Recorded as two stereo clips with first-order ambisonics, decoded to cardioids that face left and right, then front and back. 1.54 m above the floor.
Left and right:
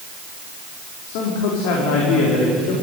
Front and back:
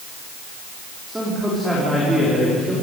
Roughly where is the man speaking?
Left.